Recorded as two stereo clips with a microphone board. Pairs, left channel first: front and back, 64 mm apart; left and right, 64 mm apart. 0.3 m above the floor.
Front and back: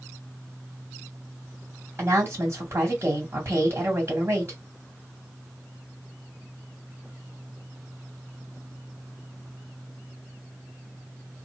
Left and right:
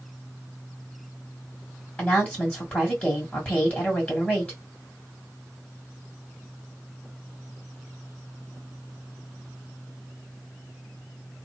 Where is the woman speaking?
150° left, 2 m.